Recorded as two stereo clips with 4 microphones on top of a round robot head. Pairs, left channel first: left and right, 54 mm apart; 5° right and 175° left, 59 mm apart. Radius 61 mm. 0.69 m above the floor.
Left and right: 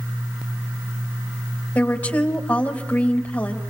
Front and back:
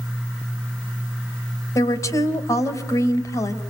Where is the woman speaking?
20° left, 3.5 m.